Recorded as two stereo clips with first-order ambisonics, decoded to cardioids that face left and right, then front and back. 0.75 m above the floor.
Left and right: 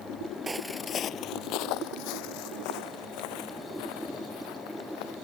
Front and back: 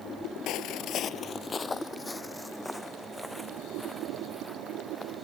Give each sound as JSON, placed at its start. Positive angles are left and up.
{"t": 0.5, "sound": "footsteps", "azimuth_deg": -20}